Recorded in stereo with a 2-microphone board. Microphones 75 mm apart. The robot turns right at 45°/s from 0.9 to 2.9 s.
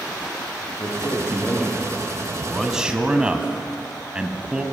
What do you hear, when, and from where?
0.8 s a man speaking: 130° left, 7 m; by 2.0 s straight behind, 7 m
2.3 s a man speaking: 10° left (ahead or behind), 2.5 m; by 4.6 s 15° right (ahead or behind), 2.5 m